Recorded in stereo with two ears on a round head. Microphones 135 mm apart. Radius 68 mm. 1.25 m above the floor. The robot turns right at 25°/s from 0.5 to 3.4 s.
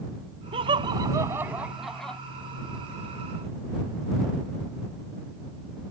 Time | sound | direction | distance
0.5 | laughter | 35° right (ahead or behind) | ?